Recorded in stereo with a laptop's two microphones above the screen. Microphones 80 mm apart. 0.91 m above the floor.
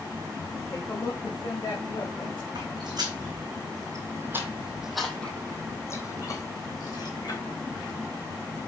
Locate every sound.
0.7 s a woman speaking: 35° left (ahead or behind), 1.1 m; by 2.5 s 75° left (ahead or behind), 2 m
2.5 s footsteps: 65° right (ahead or behind), 2.5 m; by 7.4 s 60° left (ahead or behind), 2.5 m